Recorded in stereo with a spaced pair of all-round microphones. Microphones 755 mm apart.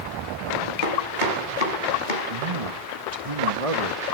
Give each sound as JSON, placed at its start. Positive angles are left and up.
{"t": 0.8, "sound": "chopping", "side_deg": 80, "distance_m": 4.5}
{"t": 2.3, "sound": "a man speaking", "side_deg": -45, "distance_m": 2.0}